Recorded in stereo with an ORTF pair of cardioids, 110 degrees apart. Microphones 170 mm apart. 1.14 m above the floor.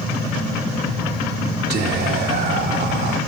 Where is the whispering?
70° right, 2.5 m.